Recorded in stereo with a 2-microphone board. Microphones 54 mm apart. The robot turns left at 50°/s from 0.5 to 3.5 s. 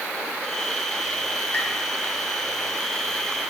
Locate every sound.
1.5 s tapping: 30° left (ahead or behind), 1.7 m; by 1.7 s 40° left (ahead or behind), 1.7 m